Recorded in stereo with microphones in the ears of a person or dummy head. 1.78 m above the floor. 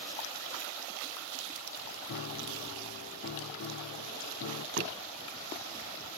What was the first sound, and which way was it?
A piano, 65° left (ahead or behind).